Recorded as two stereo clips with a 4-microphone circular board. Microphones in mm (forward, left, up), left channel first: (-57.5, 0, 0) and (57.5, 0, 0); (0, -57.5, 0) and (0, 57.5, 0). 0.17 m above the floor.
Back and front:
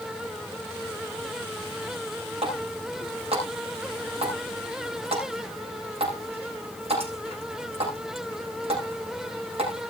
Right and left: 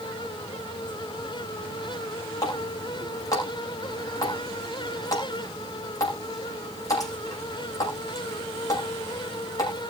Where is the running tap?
30° right, 7 m.